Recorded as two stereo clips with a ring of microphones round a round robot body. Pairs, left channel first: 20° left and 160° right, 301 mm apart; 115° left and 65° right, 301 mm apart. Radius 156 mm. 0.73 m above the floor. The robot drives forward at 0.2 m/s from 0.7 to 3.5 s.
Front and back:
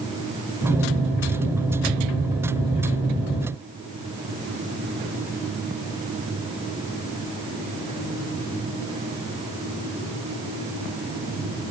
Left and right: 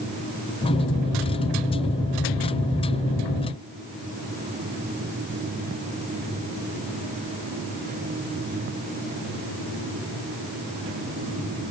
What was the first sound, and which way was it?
Only background noise.